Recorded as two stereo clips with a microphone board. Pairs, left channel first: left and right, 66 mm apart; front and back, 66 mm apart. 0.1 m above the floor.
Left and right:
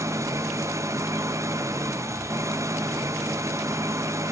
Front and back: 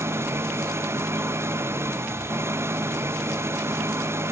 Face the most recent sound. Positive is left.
turn(degrees=-130)